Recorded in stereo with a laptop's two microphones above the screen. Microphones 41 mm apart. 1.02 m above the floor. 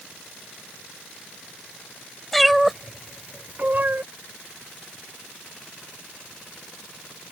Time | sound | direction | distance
2.3 | a cat meowing | centre (ahead or behind) | ?